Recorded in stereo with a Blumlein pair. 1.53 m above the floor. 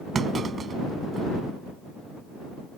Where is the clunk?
20° right.